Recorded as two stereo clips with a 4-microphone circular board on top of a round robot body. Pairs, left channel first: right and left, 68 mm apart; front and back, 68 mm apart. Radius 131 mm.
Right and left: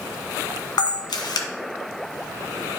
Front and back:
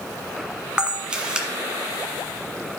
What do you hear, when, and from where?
0.8 s a camera shutter: 100° right, 1.1 m